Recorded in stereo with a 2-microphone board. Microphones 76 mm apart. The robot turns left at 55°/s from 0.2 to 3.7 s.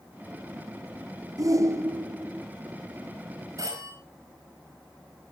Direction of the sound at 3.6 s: 50° right (ahead or behind).